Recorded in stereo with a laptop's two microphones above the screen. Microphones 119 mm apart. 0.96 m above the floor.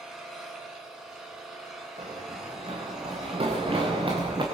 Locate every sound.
0.0 s an engine running: 5° right (ahead or behind), 8 m
2.0 s running footsteps: 65° right (ahead or behind), 8.5 m; by 4.4 s 45° right (ahead or behind), 7.5 m